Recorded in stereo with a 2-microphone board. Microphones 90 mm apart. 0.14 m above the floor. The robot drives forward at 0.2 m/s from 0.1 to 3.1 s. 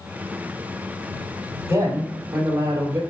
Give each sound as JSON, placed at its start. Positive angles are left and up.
{"t": 1.7, "sound": "a man speaking", "side_deg": -25, "distance_m": 3.0}